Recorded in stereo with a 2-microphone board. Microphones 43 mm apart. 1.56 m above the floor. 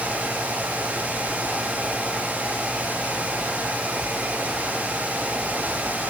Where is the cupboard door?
I don't hear a cupboard door.